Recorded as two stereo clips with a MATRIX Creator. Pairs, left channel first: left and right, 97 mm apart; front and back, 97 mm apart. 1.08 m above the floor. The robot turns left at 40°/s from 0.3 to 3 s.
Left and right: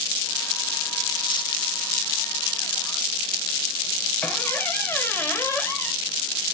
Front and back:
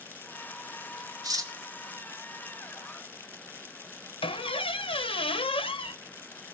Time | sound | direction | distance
1.2 | cutlery clinking | 130° left | 1.4 m
4.2 | a squeak | 20° left | 0.9 m